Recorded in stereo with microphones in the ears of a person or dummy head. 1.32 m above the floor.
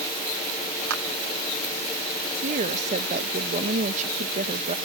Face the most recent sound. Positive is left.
turn(degrees=-40)  # may be behind; listen again after turning